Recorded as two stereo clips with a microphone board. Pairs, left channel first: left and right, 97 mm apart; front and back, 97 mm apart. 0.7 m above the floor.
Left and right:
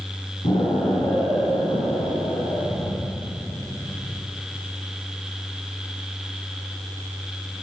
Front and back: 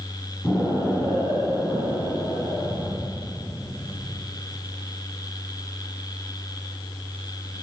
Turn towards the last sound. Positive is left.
turn(degrees=75)